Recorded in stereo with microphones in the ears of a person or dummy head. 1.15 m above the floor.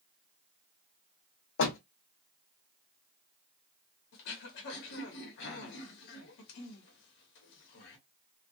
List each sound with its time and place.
1.6 s a door slam: 65° left (ahead or behind), 0.8 m
4.1 s throat clearing: 60° left (ahead or behind), 1.0 m